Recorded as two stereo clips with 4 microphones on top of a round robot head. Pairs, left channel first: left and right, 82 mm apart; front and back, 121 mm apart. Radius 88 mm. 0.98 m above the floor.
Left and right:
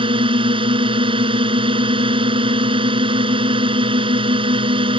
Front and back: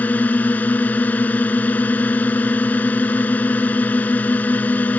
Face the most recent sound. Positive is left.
turn(degrees=-75)